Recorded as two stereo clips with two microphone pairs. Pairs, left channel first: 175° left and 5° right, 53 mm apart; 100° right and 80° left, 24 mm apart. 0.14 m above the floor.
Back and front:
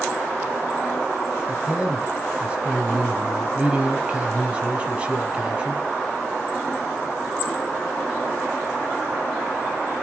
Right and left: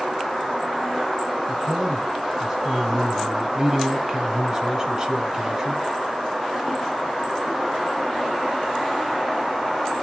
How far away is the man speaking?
About 1.6 m.